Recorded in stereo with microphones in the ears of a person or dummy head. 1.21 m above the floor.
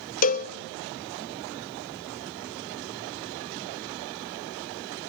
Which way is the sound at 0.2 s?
50° left (ahead or behind).